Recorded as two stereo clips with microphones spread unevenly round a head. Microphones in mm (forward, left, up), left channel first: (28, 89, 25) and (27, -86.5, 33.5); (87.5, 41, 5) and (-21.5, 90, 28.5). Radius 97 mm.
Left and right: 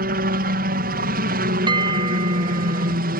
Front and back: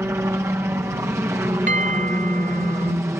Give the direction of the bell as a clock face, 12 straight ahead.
5 o'clock.